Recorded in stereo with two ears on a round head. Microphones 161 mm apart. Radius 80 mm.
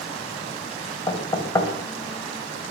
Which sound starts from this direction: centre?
Knocking, at 1.1 s.